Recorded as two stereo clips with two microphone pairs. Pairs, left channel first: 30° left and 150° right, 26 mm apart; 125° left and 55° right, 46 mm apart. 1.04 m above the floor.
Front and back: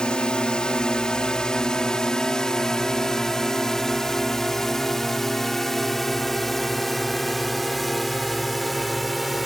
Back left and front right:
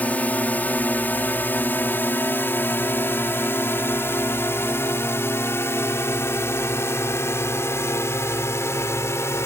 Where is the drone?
75° left; by 9.5 s 120° left.